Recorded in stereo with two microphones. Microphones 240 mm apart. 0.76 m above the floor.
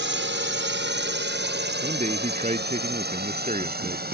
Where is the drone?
50° right (ahead or behind); by 4.2 s 40° right (ahead or behind).